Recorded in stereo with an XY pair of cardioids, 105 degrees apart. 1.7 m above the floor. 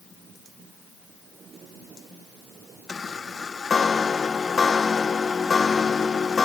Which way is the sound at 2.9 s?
35° left.